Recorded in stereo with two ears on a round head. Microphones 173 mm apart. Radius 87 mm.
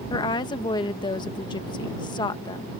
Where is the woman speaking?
25° left (ahead or behind).